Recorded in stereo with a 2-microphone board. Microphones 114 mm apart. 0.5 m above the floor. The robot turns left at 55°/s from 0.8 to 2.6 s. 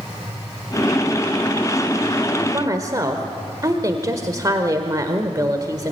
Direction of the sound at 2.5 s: 35° right (ahead or behind).